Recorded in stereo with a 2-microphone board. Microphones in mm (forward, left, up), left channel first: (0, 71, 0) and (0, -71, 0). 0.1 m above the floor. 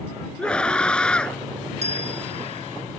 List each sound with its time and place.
0.4 s a scream: 5° left (ahead or behind)
1.8 s a bell: 50° right (ahead or behind)